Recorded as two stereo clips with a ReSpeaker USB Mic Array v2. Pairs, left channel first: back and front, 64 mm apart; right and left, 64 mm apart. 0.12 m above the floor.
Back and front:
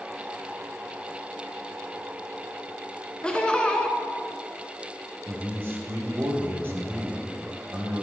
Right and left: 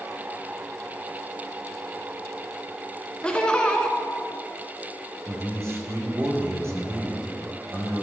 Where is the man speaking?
50° left, 3.5 m.